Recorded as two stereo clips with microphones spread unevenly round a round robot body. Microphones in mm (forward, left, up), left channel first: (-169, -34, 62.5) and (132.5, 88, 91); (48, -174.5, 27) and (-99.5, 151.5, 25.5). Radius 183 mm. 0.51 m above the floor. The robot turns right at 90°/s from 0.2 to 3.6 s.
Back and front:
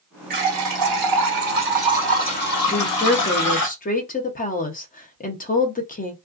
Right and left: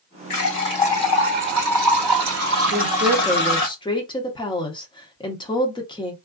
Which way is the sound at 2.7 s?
145° left.